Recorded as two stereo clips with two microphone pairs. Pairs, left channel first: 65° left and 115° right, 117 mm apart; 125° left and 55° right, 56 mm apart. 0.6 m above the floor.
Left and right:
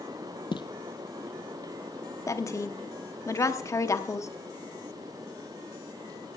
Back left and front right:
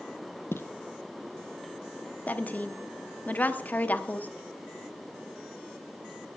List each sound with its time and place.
0.5 s footsteps: 95° left, 0.9 m
2.3 s a woman speaking: 100° left, 0.8 m